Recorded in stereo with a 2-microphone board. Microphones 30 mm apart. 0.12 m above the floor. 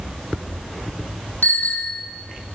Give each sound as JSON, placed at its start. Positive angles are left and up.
{"t": 1.4, "sound": "a bicycle bell", "side_deg": 75, "distance_m": 3.0}